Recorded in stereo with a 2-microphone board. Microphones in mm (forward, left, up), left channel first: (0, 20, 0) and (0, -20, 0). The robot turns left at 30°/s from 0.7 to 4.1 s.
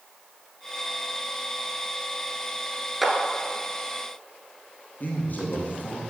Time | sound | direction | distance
3.0 | a clap | 5° right (ahead or behind) | 1.2 m
5.0 | a man speaking | 50° left (ahead or behind) | 2.5 m